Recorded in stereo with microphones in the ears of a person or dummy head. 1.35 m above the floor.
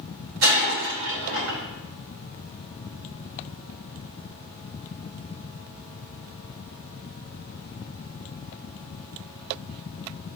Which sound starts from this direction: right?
Breaking glass, at 0.4 s.